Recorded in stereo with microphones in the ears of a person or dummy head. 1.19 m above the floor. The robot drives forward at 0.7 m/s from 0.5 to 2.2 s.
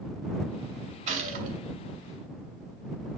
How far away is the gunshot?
About 2.5 m.